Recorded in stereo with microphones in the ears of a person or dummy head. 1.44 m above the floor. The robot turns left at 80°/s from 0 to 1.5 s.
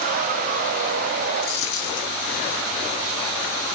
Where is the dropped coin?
60° left (ahead or behind), 1.8 m; by 2.1 s 65° left (ahead or behind), 1.8 m.